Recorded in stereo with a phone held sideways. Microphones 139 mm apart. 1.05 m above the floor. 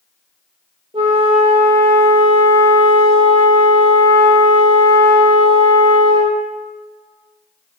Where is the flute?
40° right (ahead or behind), 1.2 m.